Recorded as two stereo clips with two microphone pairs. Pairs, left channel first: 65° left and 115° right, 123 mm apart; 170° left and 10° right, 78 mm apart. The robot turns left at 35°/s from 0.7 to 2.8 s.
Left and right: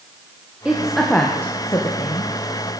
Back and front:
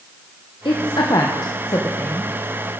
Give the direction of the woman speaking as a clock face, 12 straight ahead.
7 o'clock.